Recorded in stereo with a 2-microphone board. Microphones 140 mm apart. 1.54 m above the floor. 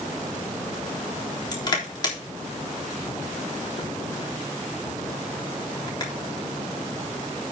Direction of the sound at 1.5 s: 30° left (ahead or behind).